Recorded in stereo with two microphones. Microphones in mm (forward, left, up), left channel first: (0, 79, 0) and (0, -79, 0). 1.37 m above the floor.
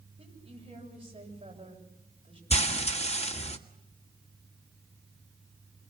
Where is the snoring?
No snoring in this recording.